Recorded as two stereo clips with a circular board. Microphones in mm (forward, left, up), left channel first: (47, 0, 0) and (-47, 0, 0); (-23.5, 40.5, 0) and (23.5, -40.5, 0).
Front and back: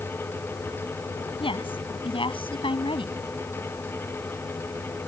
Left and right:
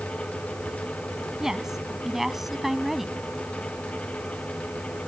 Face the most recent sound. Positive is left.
turn(degrees=30)